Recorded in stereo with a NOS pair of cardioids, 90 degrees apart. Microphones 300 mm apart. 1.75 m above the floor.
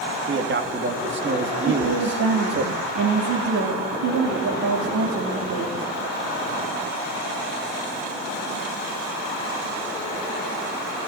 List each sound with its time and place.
0.3 s a man speaking: 40° right, 3 m
1.7 s a woman speaking: 65° right, 4 m